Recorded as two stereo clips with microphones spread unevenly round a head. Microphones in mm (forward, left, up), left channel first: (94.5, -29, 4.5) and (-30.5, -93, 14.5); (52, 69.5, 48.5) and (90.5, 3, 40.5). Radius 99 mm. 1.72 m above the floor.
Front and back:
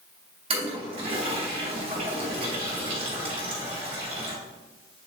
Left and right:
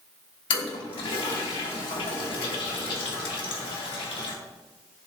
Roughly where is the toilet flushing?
Behind left.